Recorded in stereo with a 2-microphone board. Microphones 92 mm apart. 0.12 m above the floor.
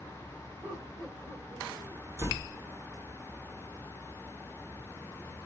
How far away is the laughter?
About 7 m.